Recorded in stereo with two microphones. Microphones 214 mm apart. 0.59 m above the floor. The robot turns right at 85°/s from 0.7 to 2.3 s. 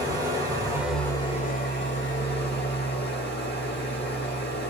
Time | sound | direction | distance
0.0 | an engine running | 20° right | 2 m